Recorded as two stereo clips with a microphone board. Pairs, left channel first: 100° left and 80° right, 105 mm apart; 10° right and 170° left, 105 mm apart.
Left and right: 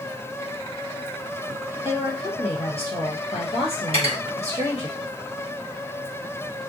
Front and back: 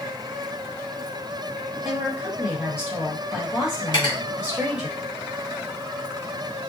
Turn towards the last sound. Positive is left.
turn(degrees=-55)